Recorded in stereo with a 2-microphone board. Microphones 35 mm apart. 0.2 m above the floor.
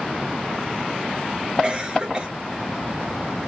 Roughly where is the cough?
Centre.